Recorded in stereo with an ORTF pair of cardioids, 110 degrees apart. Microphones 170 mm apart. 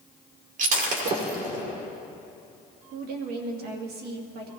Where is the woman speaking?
70° right, 2.5 m.